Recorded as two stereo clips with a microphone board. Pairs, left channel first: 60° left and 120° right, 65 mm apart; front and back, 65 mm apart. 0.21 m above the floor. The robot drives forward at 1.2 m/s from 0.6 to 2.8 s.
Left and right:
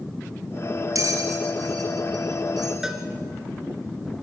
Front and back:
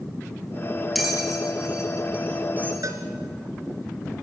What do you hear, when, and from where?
0.9 s a bell: 90° right, 3.5 m; by 2.7 s 125° right, 4 m
2.8 s a cowbell: 160° left, 2.5 m